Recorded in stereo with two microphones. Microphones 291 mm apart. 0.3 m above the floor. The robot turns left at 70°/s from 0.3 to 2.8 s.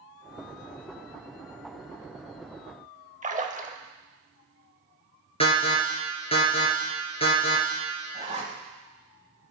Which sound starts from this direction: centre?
An alarm, at 5.4 s.